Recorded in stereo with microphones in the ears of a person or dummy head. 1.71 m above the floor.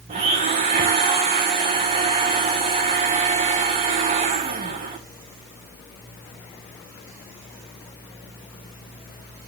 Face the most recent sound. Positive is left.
turn(degrees=-35)  # may be behind; listen again after turning